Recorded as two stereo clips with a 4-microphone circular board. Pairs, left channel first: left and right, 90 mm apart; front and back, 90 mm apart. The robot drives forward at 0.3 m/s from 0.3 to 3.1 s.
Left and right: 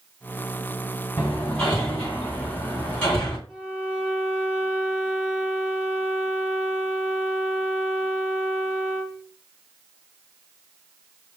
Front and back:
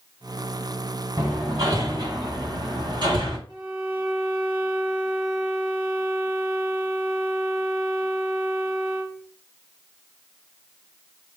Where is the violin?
170° right, 1.9 m.